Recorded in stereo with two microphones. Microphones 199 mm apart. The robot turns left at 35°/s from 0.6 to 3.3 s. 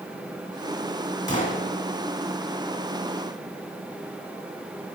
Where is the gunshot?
40° left (ahead or behind), 2 m; by 1.6 s 45° left (ahead or behind), 2 m.